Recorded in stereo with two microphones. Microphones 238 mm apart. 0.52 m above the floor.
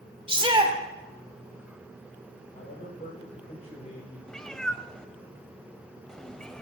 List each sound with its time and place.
0.3 s a shout: 20° right (ahead or behind), 2.0 m
2.5 s a man speaking: 25° left (ahead or behind), 9.5 m
4.3 s a cat meowing: 5° left (ahead or behind), 0.6 m